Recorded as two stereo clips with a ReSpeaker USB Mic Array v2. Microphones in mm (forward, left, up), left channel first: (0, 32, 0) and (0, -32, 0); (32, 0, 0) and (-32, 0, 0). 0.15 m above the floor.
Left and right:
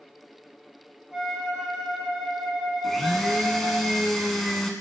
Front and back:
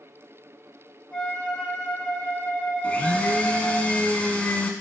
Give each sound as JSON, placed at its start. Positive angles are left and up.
{"t": 1.1, "sound": "a flute", "azimuth_deg": -15, "distance_m": 1.5}
{"t": 2.8, "sound": "a blender", "azimuth_deg": 5, "distance_m": 0.9}